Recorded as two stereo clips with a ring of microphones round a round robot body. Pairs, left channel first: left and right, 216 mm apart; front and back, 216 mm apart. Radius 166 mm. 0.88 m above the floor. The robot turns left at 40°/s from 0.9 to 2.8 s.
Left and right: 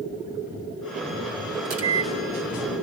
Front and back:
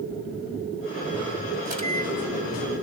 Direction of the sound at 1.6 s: 100° right.